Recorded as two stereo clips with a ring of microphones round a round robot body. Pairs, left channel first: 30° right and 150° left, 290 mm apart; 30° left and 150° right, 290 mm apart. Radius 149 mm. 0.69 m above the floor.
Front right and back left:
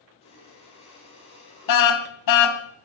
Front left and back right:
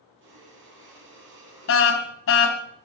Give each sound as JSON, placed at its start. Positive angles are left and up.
{"t": 0.2, "sound": "breathing", "azimuth_deg": -100, "distance_m": 7.5}
{"t": 1.7, "sound": "a car horn", "azimuth_deg": -15, "distance_m": 2.5}